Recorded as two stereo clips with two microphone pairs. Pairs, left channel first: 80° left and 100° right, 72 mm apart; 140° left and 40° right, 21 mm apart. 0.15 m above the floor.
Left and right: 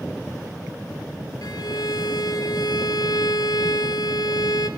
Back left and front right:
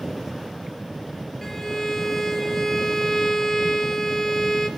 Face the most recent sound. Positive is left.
turn(degrees=75)